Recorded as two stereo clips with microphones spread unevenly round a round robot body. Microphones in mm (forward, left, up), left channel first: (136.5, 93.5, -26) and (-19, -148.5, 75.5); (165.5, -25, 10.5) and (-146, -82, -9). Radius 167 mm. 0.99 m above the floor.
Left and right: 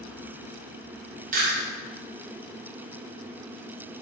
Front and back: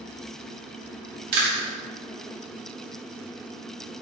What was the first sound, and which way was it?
Chewing, 165° left.